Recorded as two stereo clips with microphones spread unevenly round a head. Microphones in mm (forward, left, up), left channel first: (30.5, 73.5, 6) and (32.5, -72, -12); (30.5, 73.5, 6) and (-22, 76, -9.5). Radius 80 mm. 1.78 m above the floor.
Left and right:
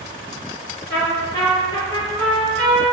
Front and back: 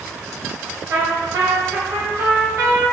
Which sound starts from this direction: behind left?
A trumpet, at 0.9 s.